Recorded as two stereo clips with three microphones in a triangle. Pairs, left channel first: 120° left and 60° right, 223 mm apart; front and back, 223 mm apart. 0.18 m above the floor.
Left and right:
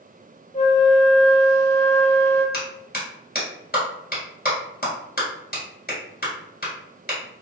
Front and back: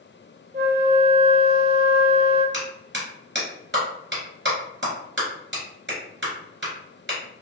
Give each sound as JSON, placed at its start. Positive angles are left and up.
{"t": 0.5, "sound": "a flute", "azimuth_deg": 165, "distance_m": 1.6}
{"t": 2.5, "sound": "a clap", "azimuth_deg": 155, "distance_m": 1.8}